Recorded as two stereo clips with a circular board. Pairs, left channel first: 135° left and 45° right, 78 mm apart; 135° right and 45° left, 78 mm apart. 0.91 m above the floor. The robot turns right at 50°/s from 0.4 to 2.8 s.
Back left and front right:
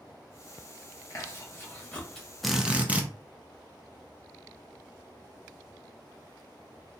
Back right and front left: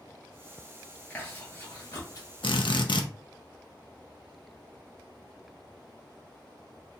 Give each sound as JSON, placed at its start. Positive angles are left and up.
{"t": 1.1, "sound": "chewing", "azimuth_deg": 160, "distance_m": 1.0}
{"t": 2.4, "sound": "a drill", "azimuth_deg": -135, "distance_m": 0.5}